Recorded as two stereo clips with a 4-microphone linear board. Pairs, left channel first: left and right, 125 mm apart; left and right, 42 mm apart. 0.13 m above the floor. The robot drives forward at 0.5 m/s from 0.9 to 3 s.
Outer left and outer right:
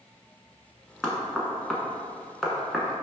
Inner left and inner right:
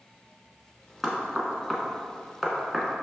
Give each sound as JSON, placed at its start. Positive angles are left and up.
{"t": 1.0, "sound": "knocking", "side_deg": 5, "distance_m": 0.8}